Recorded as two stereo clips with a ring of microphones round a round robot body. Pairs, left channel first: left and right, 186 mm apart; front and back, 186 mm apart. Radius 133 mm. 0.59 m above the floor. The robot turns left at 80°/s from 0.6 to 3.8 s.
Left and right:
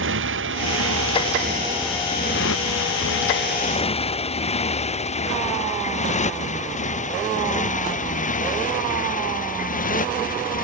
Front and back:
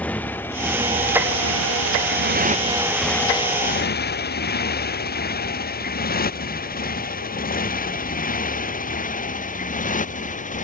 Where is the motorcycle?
85° right; by 10.7 s 50° left.